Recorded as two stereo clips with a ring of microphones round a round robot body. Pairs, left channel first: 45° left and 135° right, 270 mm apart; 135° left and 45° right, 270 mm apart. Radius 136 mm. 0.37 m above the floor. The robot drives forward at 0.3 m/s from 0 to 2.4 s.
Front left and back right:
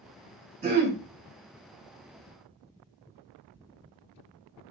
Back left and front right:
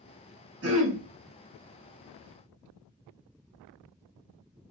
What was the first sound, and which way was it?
Throat clearing, 75° right.